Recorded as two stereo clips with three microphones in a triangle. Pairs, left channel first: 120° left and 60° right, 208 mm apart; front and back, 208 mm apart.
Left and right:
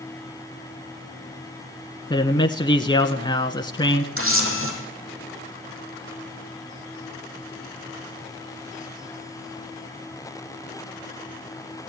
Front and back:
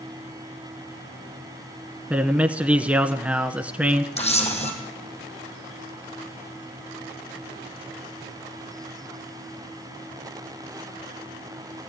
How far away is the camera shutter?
About 5 m.